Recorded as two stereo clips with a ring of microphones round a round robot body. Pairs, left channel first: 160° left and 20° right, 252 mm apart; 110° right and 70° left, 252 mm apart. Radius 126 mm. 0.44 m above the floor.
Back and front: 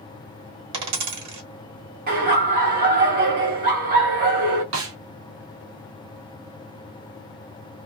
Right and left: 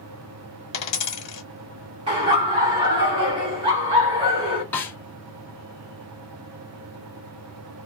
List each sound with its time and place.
0.7 s a dropped coin: 45° right, 1.3 m
2.1 s laughter: 10° left, 0.9 m
4.7 s a snare drum: 30° right, 0.8 m